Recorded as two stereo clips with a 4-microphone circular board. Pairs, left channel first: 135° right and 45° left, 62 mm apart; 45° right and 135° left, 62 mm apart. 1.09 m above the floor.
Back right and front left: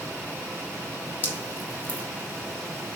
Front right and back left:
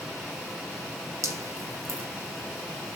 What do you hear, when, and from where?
1.2 s dripping: 165° left, 2.5 m